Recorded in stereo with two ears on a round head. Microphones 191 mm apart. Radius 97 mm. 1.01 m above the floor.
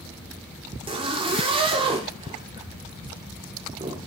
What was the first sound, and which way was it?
A zipper, 25° right (ahead or behind).